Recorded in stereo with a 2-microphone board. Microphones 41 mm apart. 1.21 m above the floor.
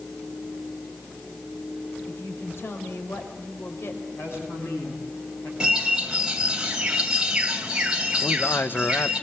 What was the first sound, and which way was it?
A woman speaking, 75° left (ahead or behind).